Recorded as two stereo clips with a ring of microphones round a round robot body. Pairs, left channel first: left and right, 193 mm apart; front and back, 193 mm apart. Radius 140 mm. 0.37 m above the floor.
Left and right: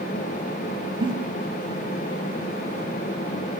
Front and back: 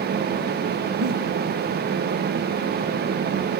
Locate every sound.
1.0 s a giggle: 155° right, 0.6 m